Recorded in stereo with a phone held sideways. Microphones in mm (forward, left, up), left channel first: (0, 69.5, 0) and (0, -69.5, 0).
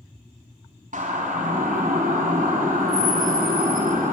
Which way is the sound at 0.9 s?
65° right (ahead or behind).